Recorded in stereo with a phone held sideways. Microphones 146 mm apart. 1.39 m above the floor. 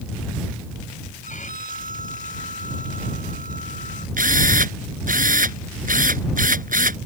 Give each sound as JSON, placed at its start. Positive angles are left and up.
{"t": 1.2, "sound": "a violin", "side_deg": 60}
{"t": 4.2, "sound": "a drill", "side_deg": -70}